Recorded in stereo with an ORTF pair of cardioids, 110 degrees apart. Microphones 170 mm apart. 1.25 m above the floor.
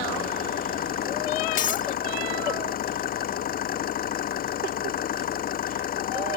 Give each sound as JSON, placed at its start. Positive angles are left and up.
{"t": 0.0, "sound": "an engine running", "azimuth_deg": 60}
{"t": 1.6, "sound": "breaking glass", "azimuth_deg": 55}